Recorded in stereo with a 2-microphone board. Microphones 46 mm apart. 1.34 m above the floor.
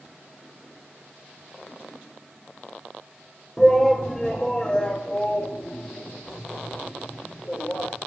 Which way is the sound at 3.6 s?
5° left (ahead or behind).